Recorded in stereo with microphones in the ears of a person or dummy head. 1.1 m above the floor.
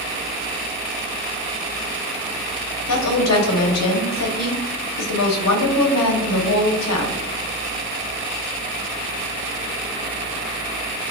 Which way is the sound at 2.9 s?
75° left (ahead or behind).